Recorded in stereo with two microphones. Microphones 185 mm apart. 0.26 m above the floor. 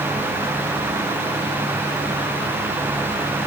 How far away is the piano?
I don't hear a piano.